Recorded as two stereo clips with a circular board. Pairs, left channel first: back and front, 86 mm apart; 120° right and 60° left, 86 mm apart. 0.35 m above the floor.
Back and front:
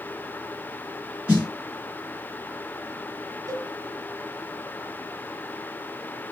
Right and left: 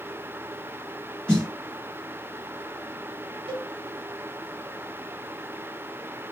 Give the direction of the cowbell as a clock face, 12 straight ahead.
10 o'clock.